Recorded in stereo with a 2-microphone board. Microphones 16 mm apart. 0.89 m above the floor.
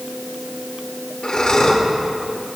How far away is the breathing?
About 2.5 m.